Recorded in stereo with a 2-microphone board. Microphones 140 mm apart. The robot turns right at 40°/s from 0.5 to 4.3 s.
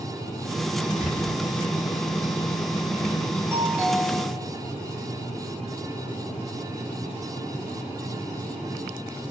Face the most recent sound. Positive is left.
turn(degrees=10)